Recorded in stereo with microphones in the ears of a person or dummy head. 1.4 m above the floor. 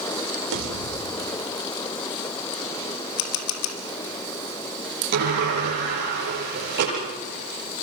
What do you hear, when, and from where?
0.5 s a pop: 65° right (ahead or behind), 4 m
3.2 s a camera shutter: 75° left (ahead or behind), 2.5 m
5.1 s a sliding door: 50° right (ahead or behind), 8.5 m